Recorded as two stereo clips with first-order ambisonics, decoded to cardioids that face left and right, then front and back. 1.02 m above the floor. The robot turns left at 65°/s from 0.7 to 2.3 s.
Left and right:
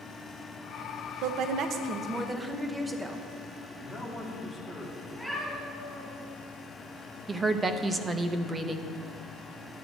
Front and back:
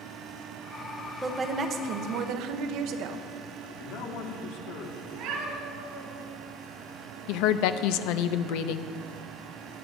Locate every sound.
1.2 s a woman speaking: 100° right, 0.8 m; by 3.3 s 170° right, 0.8 m
3.6 s a man speaking: 5° right, 1.8 m
5.1 s a cat meowing: 175° right, 3 m
7.3 s a woman speaking: 15° right, 0.6 m